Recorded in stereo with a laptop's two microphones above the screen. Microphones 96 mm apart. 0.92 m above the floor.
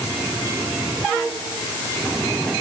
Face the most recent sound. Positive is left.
No sound to turn to.